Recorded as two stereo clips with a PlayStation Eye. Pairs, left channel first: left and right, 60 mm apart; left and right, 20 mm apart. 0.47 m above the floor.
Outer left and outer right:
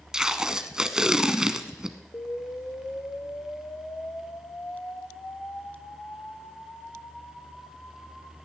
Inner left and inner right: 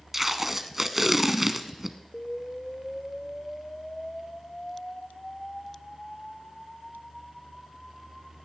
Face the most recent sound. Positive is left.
turn(degrees=45)  # may be behind; listen again after turning